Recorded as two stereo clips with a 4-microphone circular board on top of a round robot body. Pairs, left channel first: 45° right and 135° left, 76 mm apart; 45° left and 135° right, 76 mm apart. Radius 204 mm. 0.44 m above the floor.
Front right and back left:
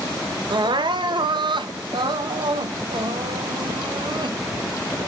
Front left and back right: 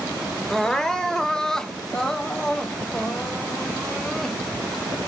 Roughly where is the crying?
Behind left.